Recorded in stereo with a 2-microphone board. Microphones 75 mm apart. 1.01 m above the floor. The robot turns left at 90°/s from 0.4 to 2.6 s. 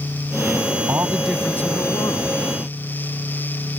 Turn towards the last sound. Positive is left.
turn(degrees=65)